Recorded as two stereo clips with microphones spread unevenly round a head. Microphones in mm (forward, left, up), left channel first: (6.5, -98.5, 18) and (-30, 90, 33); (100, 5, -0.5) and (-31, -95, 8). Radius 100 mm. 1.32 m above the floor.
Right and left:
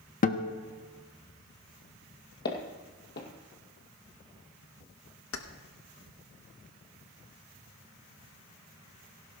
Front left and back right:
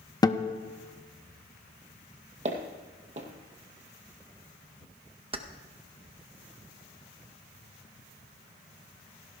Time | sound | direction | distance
0.2 | a guitar | 30° right | 0.8 m
2.5 | footsteps | 115° right | 2 m
5.3 | keys jangling | 90° right | 1.0 m